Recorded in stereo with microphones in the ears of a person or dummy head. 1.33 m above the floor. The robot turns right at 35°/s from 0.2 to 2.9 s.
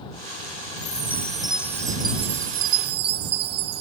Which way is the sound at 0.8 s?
160° left.